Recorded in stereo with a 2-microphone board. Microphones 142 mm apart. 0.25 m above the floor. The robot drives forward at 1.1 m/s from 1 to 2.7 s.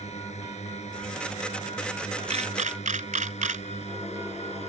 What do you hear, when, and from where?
0.0 s a drone: 50° left (ahead or behind)
2.3 s a camera shutter: 50° right (ahead or behind); by 3.6 s 60° right (ahead or behind)